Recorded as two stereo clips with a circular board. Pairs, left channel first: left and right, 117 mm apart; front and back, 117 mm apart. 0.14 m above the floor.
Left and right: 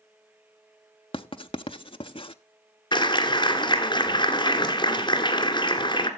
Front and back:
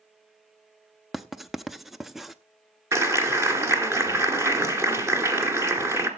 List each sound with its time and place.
1.1 s writing: 90° left, 0.5 m
2.9 s a clap: 120° left, 1.8 m